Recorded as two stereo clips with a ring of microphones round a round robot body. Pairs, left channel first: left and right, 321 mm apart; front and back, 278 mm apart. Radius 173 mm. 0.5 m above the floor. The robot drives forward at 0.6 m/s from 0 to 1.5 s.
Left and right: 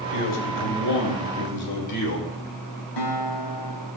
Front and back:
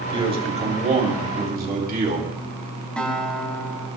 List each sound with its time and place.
0.1 s a man speaking: 110° left, 3 m; by 2.3 s 125° left, 3 m
3.0 s a guitar: 85° left, 2 m